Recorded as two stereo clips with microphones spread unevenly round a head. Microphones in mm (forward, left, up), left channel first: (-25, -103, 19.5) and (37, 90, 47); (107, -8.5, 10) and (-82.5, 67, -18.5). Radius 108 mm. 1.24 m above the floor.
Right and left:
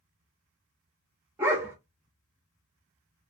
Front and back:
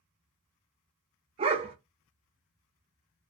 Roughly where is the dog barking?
Behind left.